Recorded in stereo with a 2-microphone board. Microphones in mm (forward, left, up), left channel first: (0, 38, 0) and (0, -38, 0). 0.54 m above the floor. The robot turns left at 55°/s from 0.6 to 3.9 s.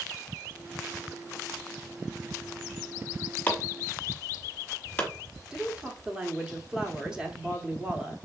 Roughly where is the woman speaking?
Centre.